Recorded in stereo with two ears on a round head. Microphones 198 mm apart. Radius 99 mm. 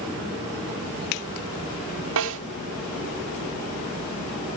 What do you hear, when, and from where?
2.2 s a snare drum: 65° right (ahead or behind), 3.5 m